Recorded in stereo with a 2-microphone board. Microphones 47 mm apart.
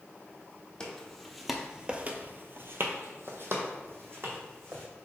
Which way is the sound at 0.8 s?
15° left (ahead or behind).